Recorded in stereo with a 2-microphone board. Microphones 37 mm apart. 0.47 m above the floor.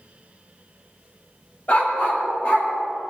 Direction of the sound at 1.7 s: 55° left (ahead or behind).